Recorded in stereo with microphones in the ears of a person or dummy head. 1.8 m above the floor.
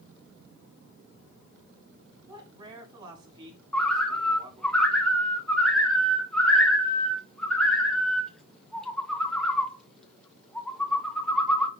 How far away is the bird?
About 1.7 m.